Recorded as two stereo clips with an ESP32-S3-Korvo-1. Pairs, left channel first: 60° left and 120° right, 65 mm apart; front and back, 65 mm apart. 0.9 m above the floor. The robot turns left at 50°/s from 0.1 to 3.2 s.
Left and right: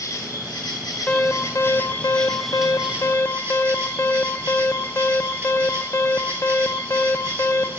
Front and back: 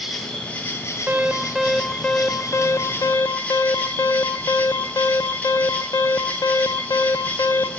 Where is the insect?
90° left, 1.6 m; by 7.8 s 65° right, 1.6 m.